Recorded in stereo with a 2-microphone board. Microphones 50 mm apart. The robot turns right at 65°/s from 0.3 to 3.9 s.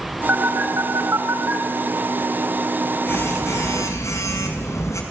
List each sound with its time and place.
0.3 s a phone buzzing: 140° right, 5.5 m; by 5.0 s 90° left, 5.5 m